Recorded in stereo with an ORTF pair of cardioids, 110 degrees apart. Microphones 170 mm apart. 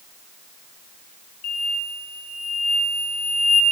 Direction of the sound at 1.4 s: 65° left.